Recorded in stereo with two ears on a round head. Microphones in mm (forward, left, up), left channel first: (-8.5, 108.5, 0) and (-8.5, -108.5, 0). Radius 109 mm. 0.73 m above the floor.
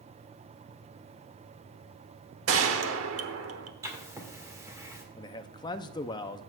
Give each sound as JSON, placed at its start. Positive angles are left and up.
{"t": 2.5, "sound": "a gunshot", "side_deg": -60, "distance_m": 1.0}
{"t": 3.8, "sound": "writing", "side_deg": -15, "distance_m": 1.8}
{"t": 5.2, "sound": "a man speaking", "side_deg": 20, "distance_m": 0.5}